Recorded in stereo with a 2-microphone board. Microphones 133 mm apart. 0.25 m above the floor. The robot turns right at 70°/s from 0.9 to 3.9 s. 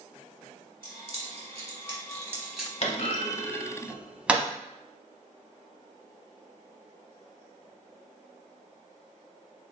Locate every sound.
0.8 s keys jangling: 40° right (ahead or behind), 0.9 m; by 2.7 s 5° left (ahead or behind), 0.9 m
2.8 s a clunk: 50° left (ahead or behind), 0.6 m; by 4.5 s 10° right (ahead or behind), 0.6 m